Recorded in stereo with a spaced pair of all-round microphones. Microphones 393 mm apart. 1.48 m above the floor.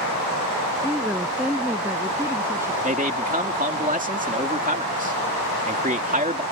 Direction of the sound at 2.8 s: 20° right (ahead or behind).